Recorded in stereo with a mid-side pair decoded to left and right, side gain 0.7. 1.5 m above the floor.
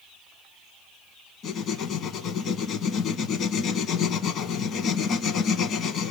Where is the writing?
45° left, 1.3 m.